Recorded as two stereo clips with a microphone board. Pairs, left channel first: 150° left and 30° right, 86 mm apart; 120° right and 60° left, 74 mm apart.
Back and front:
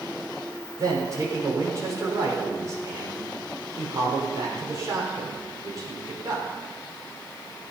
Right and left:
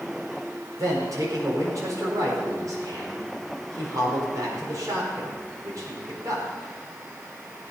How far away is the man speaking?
About 5 m.